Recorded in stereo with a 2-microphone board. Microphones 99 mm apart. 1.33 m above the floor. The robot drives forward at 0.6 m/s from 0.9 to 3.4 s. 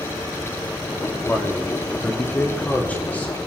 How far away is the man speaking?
About 3 m.